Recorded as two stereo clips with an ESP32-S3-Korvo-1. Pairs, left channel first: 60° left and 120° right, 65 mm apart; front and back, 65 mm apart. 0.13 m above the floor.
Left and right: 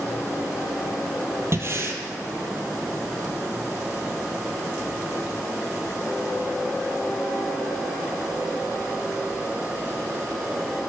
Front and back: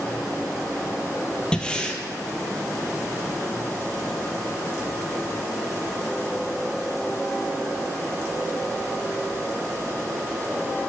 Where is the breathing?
75° right, 0.7 m.